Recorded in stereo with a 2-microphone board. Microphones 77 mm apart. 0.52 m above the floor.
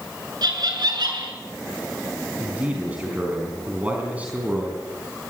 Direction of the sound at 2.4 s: 20° right (ahead or behind).